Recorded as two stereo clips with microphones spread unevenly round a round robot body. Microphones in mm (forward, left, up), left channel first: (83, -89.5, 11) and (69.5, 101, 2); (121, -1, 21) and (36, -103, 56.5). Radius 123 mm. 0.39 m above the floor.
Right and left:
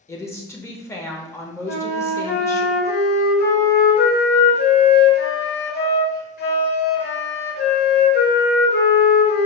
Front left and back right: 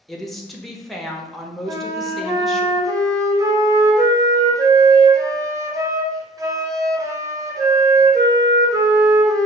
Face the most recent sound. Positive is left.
turn(degrees=-60)